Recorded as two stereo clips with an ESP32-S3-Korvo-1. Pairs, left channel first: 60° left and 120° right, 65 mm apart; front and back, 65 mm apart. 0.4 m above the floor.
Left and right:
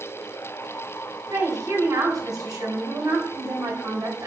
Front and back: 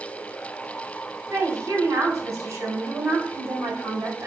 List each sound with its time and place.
1.3 s a woman speaking: 135° right, 3.5 m